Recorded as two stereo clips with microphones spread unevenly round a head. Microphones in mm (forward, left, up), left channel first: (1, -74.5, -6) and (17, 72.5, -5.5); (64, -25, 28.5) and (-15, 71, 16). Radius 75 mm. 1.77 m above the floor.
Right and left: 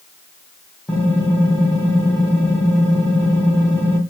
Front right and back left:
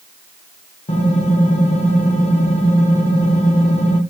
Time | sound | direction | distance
0.9 | typing on a keyboard | 15° right | 1.0 m